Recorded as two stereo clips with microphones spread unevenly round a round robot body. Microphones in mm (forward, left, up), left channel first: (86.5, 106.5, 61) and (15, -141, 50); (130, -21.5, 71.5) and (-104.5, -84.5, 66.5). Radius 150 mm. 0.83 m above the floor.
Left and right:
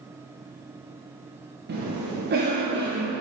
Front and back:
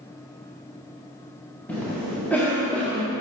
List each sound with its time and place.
1.7 s a cough: 70° right, 1.2 m